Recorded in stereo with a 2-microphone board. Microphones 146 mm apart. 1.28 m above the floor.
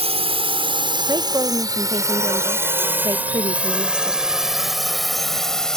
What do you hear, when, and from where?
0.0 s a drone: 45° right (ahead or behind); by 5.8 s 5° left (ahead or behind)
1.1 s a woman speaking: 30° right (ahead or behind)